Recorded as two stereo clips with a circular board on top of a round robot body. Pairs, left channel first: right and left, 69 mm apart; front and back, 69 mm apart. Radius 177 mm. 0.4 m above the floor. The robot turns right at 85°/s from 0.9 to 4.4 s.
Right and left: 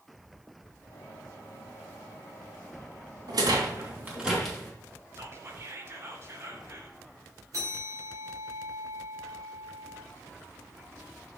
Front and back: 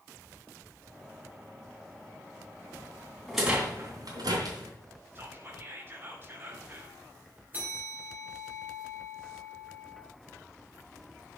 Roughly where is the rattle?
Left.